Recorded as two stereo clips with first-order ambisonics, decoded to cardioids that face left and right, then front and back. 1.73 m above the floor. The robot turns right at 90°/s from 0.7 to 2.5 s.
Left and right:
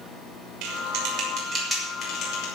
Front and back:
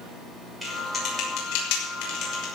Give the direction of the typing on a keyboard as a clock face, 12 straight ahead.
3 o'clock.